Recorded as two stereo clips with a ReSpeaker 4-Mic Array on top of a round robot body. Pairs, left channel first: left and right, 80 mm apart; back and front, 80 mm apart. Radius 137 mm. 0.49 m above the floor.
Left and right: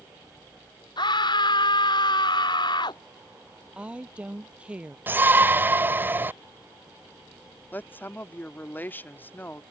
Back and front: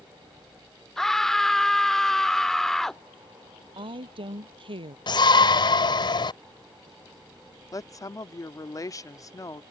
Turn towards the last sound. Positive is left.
turn(degrees=150)